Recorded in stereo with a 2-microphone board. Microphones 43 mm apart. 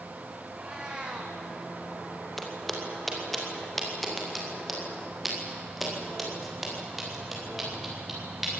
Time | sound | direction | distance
0.5 | a cat meowing | 20° right (ahead or behind) | 4 m
2.4 | footsteps | 5° left (ahead or behind) | 5.5 m